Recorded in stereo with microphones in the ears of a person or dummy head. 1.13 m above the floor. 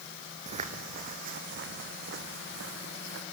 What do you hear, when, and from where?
0.5 s footsteps: 35° right (ahead or behind), 2.5 m; by 3.2 s 70° right (ahead or behind), 4.5 m